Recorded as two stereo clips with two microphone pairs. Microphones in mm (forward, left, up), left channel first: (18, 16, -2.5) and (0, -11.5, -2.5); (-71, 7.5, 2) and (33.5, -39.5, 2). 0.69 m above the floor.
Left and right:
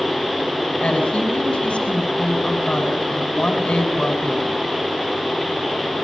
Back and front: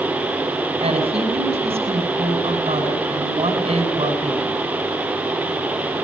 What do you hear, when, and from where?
0.8 s a woman speaking: 5° left, 7 m